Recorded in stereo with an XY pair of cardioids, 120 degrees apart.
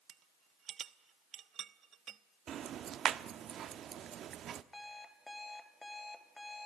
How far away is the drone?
I don't hear a drone.